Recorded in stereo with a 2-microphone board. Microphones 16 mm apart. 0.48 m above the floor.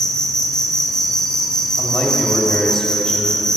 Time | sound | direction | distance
0.0 | an insect | 40° left (ahead or behind) | 1.4 m
1.8 | a man speaking | 30° left (ahead or behind) | 2 m